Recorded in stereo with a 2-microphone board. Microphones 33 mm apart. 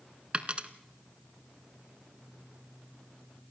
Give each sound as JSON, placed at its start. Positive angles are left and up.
{"t": 0.3, "sound": "a dropped coin", "side_deg": -35, "distance_m": 1.0}